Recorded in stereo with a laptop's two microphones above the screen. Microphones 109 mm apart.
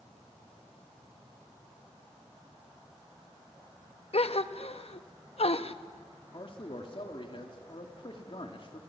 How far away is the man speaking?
About 2.5 m.